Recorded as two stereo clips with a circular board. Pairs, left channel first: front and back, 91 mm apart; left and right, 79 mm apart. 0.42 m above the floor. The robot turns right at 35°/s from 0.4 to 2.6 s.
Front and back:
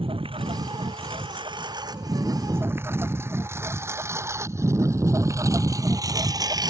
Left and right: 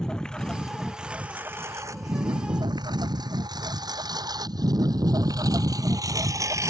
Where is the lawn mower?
170° left; by 6.7 s 140° right.